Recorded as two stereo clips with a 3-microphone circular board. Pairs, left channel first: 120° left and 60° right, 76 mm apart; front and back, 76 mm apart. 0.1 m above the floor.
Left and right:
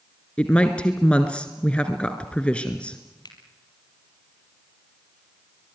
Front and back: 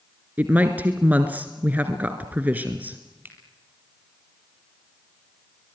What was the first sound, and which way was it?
A woman speaking, 170° left.